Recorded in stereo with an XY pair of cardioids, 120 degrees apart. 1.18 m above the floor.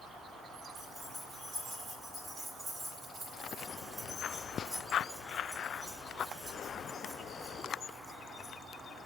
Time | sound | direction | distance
0.8 | keys jangling | 40° right | 5.5 m